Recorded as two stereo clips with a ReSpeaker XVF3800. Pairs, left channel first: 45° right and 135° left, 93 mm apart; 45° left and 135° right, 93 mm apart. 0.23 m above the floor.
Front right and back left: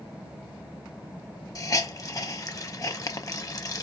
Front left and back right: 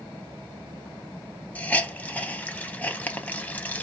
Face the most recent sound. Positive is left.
turn(degrees=-20)